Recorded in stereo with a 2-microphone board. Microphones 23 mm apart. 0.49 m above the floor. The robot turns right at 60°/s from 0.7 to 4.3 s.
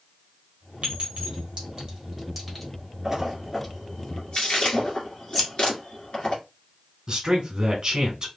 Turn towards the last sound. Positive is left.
turn(degrees=-30)  # may be behind; listen again after turning